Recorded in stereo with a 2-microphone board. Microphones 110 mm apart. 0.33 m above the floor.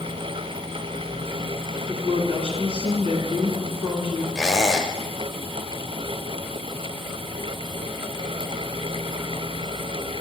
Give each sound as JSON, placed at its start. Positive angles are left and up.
{"t": 1.9, "sound": "a woman speaking", "side_deg": -50, "distance_m": 2.5}
{"t": 4.3, "sound": "a squeak", "side_deg": -5, "distance_m": 0.9}